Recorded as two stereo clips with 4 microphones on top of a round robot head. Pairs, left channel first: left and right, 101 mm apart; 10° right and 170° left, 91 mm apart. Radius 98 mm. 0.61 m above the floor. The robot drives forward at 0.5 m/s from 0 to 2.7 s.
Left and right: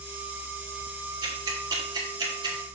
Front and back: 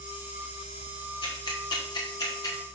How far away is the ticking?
About 2.5 m.